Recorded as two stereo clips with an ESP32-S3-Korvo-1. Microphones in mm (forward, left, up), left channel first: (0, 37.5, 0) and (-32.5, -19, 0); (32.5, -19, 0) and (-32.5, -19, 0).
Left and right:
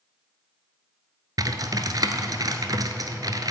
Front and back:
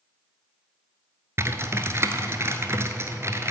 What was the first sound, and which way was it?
Typing on a keyboard, 130° right.